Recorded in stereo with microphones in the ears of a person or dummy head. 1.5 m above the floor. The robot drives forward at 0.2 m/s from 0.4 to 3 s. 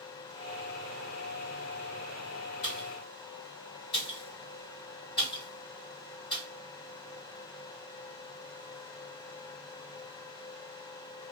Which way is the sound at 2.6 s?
50° left (ahead or behind).